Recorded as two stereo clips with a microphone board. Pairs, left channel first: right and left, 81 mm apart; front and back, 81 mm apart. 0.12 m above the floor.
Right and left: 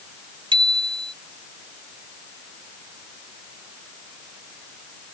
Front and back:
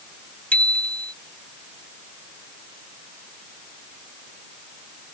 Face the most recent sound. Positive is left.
turn(degrees=75)